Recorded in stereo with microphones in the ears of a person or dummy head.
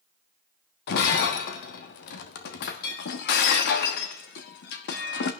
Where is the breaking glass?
55° left (ahead or behind), 0.9 m.